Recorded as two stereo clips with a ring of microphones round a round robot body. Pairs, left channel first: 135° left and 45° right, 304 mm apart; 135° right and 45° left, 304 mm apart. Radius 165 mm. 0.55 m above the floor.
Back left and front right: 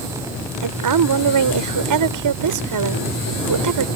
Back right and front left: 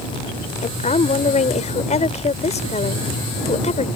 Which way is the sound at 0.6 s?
65° right.